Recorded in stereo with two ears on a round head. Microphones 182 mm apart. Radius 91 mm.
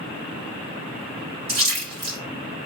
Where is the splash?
80° right, 3 m.